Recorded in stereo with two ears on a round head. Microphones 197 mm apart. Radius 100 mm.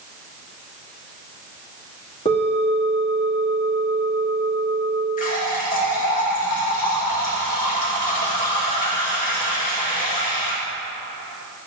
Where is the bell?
30° left (ahead or behind), 2 m.